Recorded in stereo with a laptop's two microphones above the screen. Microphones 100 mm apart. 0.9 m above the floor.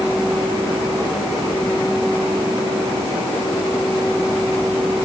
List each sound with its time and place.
Only background noise.